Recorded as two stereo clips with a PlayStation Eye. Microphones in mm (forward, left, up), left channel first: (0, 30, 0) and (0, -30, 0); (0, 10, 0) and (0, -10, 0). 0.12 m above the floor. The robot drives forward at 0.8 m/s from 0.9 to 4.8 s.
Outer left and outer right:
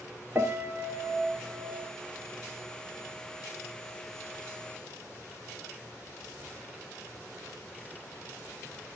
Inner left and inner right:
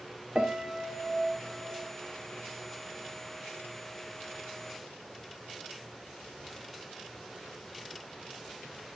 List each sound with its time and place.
0.3 s a piano: 35° right (ahead or behind), 1.6 m; by 1.9 s 45° right (ahead or behind), 1.3 m